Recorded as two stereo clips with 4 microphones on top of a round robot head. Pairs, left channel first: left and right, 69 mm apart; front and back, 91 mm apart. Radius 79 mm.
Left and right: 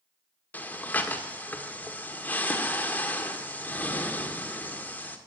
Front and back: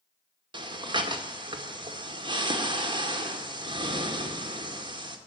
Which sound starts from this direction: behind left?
Breathing, at 0.5 s.